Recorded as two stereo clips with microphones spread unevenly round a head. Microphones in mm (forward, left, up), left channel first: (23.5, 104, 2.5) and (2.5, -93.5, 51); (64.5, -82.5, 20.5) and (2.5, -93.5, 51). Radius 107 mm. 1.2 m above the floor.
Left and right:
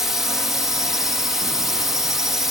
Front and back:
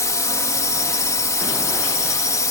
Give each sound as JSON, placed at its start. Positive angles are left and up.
{"t": 0.0, "sound": "a drone", "azimuth_deg": -5}